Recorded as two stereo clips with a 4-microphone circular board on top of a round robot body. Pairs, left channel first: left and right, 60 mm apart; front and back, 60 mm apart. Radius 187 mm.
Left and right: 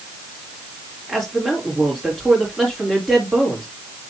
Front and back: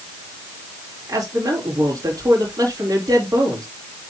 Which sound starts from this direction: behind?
A man speaking, at 1.1 s.